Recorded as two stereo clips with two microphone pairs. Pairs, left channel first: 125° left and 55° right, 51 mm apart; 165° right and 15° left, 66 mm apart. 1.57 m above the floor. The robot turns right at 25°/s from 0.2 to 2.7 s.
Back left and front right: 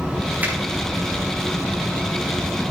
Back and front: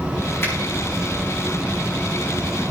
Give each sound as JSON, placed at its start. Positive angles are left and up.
{"t": 0.4, "sound": "a finger snap", "azimuth_deg": -115, "distance_m": 4.0}